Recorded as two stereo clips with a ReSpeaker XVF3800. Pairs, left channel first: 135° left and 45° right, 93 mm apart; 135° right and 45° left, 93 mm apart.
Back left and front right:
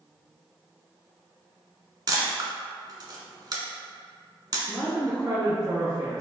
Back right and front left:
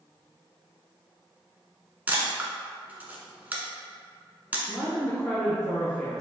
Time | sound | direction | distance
2.1 | a camera shutter | 20° right | 0.8 m
4.7 | a woman speaking | 55° right | 1.6 m